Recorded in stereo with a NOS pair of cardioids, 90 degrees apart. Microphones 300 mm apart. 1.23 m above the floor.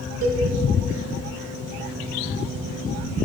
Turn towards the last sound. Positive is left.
turn(degrees=-70)